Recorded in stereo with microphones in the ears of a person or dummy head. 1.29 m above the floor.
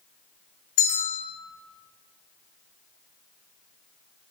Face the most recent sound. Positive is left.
turn(degrees=65)  # may be behind; listen again after turning